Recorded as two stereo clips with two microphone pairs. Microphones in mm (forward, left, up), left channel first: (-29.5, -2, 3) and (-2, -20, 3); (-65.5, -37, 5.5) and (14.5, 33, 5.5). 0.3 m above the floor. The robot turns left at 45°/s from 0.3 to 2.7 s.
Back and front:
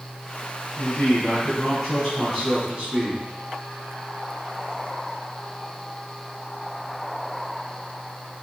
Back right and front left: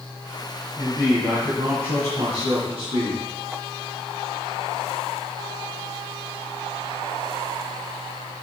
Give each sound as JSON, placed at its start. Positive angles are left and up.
{"t": 0.8, "sound": "a man speaking", "azimuth_deg": 120, "distance_m": 2.0}